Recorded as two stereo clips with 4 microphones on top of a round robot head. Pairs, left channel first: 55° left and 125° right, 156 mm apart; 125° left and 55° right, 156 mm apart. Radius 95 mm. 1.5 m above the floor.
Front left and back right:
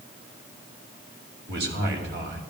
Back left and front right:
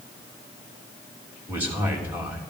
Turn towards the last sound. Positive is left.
turn(degrees=-135)